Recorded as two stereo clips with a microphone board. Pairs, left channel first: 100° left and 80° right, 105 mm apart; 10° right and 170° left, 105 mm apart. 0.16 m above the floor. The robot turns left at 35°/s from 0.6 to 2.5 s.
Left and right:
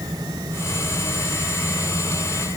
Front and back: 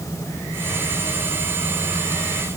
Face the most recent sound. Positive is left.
No sound to turn to.